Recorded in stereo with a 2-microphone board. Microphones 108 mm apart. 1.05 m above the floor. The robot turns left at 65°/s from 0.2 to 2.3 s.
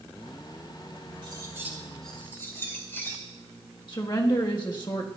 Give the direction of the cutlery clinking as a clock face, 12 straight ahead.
4 o'clock.